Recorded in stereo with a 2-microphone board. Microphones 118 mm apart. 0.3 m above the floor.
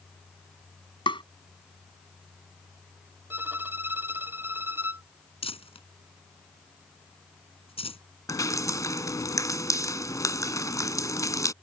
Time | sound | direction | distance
1.1 | tapping | 45° left (ahead or behind) | ?
3.3 | a violin | 20° right (ahead or behind) | ?
5.4 | crumpling | 55° left (ahead or behind) | ?
8.3 | dripping | 30° left (ahead or behind) | ?